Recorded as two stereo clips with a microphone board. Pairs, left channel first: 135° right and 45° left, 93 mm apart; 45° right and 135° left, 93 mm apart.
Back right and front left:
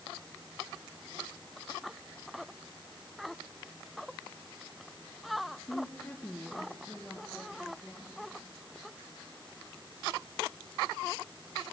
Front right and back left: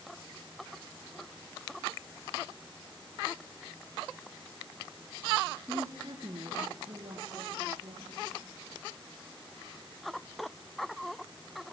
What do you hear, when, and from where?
5.7 s a woman speaking: straight behind, 1.4 m; by 8.3 s 145° left, 4.5 m